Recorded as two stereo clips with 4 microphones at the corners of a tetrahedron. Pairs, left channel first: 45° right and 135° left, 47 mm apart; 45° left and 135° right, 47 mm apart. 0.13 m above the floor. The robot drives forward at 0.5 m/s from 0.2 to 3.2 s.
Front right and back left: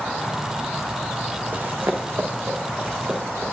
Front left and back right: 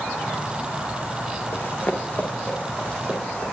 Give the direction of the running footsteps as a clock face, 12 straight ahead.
9 o'clock.